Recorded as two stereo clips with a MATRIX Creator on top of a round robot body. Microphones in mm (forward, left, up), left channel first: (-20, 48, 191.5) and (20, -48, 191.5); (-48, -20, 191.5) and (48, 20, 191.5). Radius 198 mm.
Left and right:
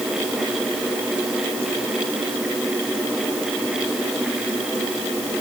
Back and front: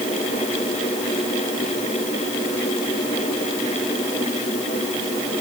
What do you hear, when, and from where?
Only background noise.